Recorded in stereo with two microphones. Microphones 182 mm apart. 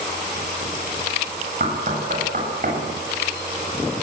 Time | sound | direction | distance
1.6 | knocking | 50° right (ahead or behind) | 8 m